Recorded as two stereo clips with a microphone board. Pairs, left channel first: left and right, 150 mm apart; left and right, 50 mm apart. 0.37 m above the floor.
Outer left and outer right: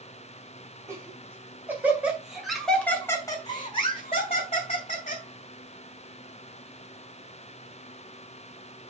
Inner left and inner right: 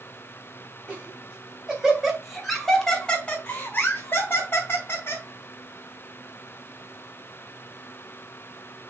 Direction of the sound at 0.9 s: 20° right (ahead or behind).